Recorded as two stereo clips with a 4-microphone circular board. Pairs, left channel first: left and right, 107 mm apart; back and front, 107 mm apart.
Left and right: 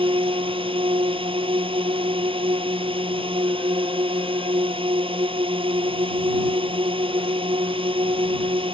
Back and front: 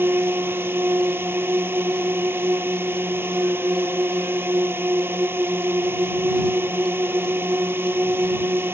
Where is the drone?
65° right.